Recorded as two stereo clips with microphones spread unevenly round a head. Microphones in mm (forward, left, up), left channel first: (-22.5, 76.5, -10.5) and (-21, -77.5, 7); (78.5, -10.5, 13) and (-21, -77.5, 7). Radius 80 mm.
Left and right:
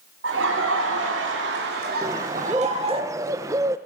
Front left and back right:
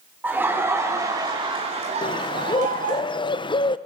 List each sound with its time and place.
0.2 s laughter: 70° right, 3.5 m; by 3.0 s 145° right, 3.5 m
2.0 s a bird: 15° right, 0.9 m